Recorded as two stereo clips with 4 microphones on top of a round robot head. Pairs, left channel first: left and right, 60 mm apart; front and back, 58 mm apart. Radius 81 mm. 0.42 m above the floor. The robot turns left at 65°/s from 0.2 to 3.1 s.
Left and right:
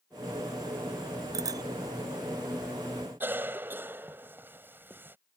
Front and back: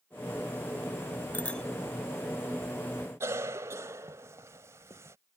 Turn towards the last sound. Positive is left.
turn(degrees=-140)